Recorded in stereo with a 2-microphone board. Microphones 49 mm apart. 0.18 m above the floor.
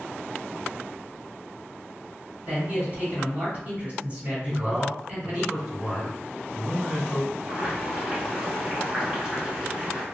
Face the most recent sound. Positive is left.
turn(degrees=-20)  # may be behind; listen again after turning